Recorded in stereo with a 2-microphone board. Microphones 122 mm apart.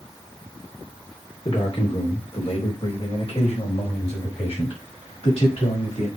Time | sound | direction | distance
1.4 | a man speaking | 50° left (ahead or behind) | 3 m